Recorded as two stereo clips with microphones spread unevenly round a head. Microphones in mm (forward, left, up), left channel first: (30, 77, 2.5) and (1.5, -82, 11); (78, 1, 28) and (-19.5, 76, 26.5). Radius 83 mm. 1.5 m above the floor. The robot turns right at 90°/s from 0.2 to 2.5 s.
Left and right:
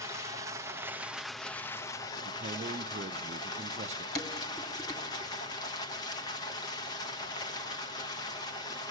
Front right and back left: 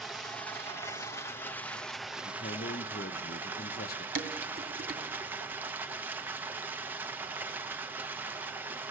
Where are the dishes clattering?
155° left, 3 m.